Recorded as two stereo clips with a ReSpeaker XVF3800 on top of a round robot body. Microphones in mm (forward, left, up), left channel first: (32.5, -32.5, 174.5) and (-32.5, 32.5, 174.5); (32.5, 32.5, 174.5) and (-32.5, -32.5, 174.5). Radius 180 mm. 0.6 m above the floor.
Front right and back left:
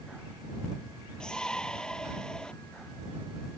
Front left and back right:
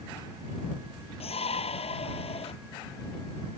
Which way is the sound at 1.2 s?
35° left.